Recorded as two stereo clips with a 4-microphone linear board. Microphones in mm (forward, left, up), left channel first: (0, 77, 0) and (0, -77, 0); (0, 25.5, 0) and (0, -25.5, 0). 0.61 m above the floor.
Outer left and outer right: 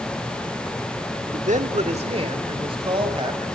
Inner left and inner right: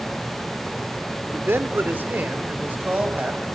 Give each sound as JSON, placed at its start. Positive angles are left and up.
{"t": 1.3, "sound": "a man speaking", "side_deg": -55, "distance_m": 1.4}